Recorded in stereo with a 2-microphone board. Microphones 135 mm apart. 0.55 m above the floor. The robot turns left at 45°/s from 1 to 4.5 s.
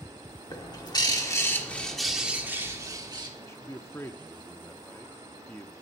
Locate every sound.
0.5 s a bird: 45° left, 1.4 m; by 3.3 s 60° right, 1.4 m
3.4 s a man speaking: 20° left (ahead or behind), 0.6 m; by 5.7 s 15° left (ahead or behind), 0.6 m